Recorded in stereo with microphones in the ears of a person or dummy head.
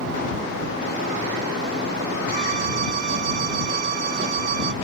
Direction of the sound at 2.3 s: 50° right (ahead or behind).